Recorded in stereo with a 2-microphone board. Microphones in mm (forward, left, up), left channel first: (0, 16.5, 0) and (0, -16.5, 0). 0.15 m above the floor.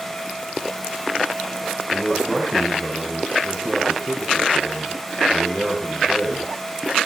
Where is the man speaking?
5° left (ahead or behind), 7.5 m.